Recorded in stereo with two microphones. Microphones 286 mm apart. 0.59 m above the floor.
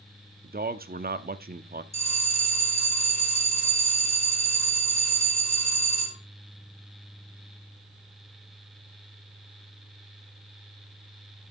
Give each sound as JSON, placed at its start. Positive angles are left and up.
{"t": 0.4, "sound": "a man speaking", "side_deg": -35, "distance_m": 0.7}
{"t": 1.9, "sound": "a bell", "side_deg": 65, "distance_m": 1.7}